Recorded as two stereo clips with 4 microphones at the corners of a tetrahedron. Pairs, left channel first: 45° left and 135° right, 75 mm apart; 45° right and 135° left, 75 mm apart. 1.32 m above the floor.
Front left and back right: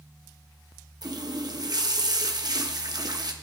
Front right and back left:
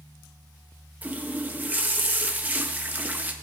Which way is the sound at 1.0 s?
160° right.